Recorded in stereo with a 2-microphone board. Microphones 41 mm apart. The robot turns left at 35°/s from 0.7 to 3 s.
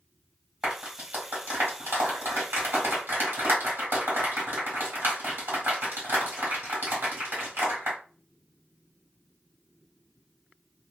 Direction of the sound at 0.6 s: 20° right (ahead or behind).